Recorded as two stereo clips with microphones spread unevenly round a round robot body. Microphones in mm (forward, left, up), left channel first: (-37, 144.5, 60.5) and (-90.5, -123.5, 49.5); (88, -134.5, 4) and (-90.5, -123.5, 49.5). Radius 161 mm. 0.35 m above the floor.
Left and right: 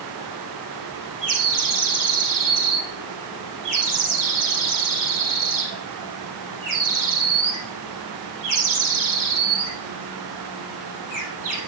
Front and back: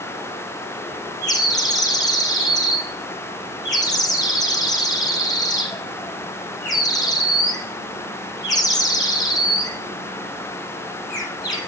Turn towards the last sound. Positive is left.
turn(degrees=-75)